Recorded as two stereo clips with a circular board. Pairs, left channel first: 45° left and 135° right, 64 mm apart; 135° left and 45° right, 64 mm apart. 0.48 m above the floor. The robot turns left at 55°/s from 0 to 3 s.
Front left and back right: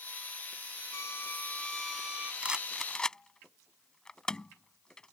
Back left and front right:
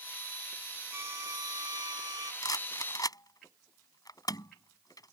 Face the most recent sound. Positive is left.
turn(degrees=120)